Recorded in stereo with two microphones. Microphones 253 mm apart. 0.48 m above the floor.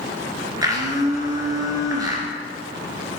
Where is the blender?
15° right (ahead or behind), 3 m.